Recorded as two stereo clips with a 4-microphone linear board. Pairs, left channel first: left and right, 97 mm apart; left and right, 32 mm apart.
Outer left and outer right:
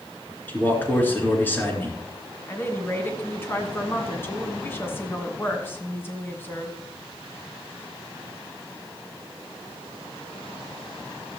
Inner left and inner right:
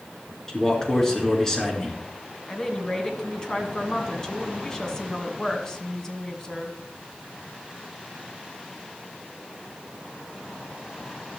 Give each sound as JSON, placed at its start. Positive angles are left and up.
{"t": 0.5, "sound": "a man speaking", "side_deg": 20, "distance_m": 4.0}
{"t": 2.5, "sound": "a woman speaking", "side_deg": 25, "distance_m": 2.5}